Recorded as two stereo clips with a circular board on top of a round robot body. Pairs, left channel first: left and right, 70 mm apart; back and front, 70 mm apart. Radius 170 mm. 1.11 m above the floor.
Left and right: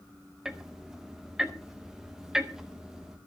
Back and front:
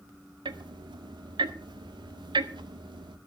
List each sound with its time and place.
0.5 s ticking: 10° right, 0.7 m